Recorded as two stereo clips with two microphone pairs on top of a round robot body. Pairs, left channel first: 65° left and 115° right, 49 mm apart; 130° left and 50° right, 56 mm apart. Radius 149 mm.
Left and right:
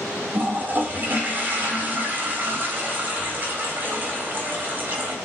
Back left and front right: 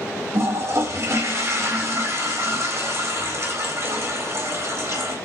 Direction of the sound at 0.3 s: 65° right.